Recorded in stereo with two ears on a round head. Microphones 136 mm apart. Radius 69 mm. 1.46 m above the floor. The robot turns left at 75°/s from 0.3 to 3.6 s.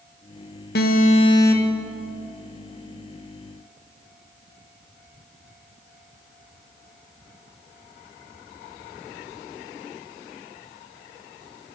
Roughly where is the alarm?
Left.